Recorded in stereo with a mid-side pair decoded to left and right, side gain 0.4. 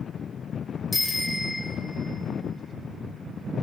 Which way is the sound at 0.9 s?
15° left.